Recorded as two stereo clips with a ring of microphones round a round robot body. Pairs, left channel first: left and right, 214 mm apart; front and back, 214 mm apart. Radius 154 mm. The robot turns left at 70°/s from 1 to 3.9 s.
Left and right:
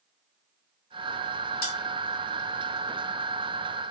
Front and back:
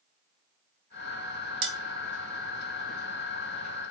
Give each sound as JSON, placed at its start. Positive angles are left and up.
{"t": 1.6, "sound": "cutlery clinking", "azimuth_deg": 160, "distance_m": 1.2}